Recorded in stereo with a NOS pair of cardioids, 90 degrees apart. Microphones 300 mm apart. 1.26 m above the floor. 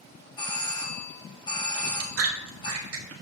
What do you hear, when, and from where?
0.4 s a doorbell: 15° left, 1.8 m
1.7 s chewing: 55° right, 1.7 m